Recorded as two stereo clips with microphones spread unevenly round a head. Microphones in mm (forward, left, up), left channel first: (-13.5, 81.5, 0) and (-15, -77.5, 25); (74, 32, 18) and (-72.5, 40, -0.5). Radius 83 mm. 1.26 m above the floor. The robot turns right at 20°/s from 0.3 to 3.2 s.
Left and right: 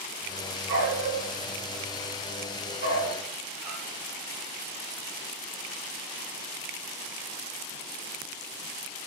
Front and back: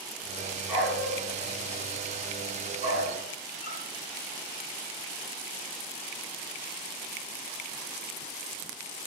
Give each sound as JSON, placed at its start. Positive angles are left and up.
{"t": 0.7, "sound": "a dog barking", "azimuth_deg": -100, "distance_m": 6.5}